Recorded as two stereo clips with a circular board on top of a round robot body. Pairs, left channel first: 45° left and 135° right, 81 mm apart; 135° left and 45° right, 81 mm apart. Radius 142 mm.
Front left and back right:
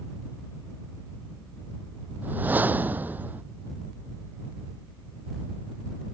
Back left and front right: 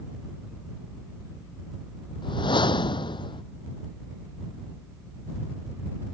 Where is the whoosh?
155° left.